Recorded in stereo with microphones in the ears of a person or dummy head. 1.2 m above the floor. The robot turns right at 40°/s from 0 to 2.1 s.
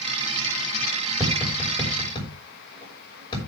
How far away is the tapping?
About 5.5 m.